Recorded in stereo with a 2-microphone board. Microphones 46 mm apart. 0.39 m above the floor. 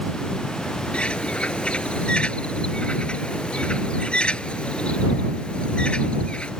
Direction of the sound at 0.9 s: 25° left (ahead or behind).